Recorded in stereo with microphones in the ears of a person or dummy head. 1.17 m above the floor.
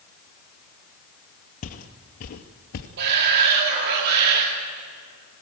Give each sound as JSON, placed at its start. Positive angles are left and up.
{"t": 1.6, "sound": "footsteps", "side_deg": 45, "distance_m": 1.9}
{"t": 3.0, "sound": "a shout", "side_deg": -55, "distance_m": 2.0}